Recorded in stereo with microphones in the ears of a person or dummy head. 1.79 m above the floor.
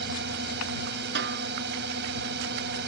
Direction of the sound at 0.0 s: 65° right (ahead or behind).